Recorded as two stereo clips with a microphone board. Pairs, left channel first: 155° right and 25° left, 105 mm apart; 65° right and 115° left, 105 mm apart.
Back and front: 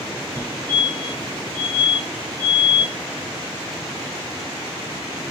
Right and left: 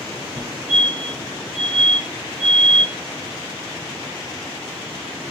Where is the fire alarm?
35° left, 2.5 m.